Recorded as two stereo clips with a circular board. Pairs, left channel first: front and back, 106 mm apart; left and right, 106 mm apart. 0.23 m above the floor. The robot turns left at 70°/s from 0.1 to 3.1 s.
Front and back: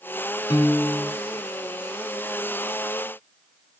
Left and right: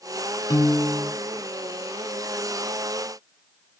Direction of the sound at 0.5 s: 45° left.